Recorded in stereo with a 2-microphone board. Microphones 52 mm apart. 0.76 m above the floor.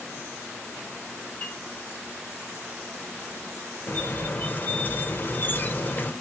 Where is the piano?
25° left (ahead or behind), 2 m.